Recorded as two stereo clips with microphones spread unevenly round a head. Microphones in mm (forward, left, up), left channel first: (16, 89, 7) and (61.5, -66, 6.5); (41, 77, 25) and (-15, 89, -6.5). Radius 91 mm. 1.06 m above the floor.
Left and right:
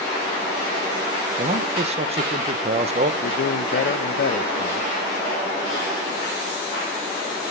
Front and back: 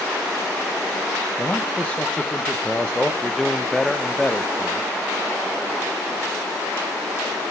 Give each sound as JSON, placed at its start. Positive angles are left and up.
{"t": 1.4, "sound": "a man speaking", "azimuth_deg": -115, "distance_m": 0.9}
{"t": 3.2, "sound": "a man speaking", "azimuth_deg": 80, "distance_m": 0.7}